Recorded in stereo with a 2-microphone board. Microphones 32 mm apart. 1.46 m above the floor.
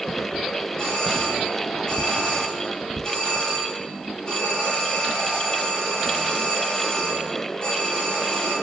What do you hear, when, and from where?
0.8 s a doorbell: 25° left (ahead or behind), 8.5 m